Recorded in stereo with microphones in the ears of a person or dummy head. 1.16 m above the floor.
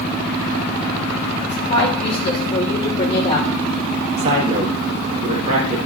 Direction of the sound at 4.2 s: 40° right (ahead or behind).